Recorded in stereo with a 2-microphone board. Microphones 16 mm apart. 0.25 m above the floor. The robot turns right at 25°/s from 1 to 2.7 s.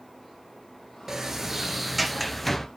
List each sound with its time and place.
1.1 s a sliding door: 30° right, 0.8 m; by 2.7 s 10° left, 0.8 m